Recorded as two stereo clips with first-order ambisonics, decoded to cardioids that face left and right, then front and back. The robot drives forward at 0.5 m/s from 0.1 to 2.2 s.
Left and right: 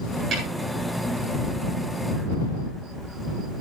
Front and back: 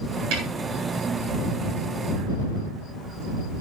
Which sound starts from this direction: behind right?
A snare drum, at 0.3 s.